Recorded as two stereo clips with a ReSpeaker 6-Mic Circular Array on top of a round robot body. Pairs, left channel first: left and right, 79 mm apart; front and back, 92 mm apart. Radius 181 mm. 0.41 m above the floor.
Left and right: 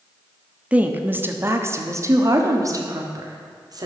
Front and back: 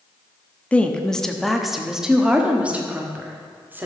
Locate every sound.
0.7 s a woman speaking: 50° right, 1.3 m; by 3.9 s 115° right, 2 m